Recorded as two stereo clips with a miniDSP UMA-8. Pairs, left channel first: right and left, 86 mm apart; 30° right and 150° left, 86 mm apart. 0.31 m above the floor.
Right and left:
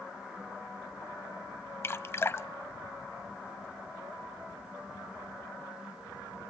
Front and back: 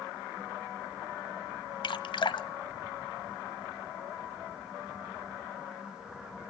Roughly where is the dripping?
Ahead right.